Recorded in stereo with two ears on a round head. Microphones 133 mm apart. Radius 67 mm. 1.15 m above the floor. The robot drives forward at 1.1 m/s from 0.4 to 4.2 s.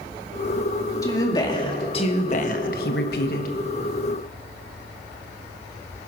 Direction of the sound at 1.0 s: 25° left (ahead or behind).